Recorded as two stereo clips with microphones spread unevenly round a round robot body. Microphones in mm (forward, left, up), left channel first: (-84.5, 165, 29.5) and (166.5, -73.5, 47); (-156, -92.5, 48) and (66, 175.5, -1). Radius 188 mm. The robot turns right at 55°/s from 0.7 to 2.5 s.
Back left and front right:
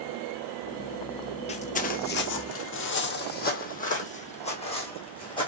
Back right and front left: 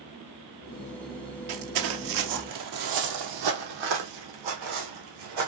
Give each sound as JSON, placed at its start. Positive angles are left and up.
{"t": 1.5, "sound": "footsteps", "azimuth_deg": 65, "distance_m": 0.8}